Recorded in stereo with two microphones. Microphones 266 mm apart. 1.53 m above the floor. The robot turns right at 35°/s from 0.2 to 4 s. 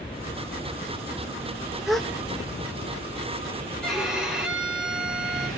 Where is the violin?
5° left (ahead or behind), 3 m; by 5.5 s centre (ahead or behind), 3 m.